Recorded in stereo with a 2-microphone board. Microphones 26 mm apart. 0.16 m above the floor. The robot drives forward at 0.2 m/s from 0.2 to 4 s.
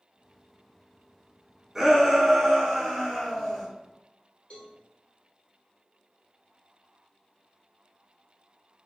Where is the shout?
15° right (ahead or behind), 1.2 m; by 3.7 s 10° right (ahead or behind), 1.4 m.